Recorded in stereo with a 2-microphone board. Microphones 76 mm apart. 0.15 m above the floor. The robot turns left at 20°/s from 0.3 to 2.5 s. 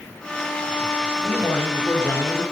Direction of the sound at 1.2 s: 15° left (ahead or behind).